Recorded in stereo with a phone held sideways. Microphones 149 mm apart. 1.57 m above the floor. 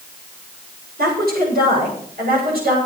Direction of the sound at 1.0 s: 85° right.